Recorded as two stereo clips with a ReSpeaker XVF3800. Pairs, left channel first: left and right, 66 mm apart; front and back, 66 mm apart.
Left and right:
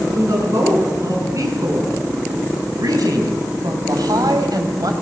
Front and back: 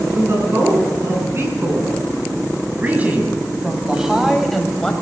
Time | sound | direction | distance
0.1 | a woman speaking | 130° right | 6.5 m